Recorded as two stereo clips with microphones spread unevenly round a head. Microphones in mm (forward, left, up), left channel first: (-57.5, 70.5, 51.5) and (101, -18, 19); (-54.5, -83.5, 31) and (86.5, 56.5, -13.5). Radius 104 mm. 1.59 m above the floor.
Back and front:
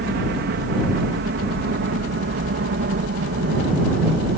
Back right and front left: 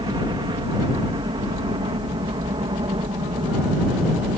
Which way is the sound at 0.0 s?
20° right.